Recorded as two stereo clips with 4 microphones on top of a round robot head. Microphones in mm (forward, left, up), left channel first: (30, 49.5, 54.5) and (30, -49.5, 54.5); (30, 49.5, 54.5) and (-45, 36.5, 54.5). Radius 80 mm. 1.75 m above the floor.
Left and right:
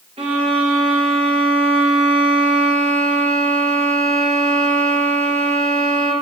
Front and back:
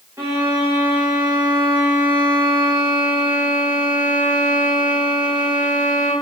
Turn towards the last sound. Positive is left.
turn(degrees=-105)